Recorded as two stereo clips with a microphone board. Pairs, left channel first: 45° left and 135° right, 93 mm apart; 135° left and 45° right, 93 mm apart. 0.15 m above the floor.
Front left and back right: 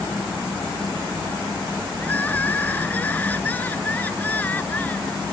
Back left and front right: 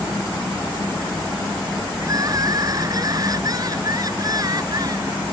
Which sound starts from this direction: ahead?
Crying, at 2.0 s.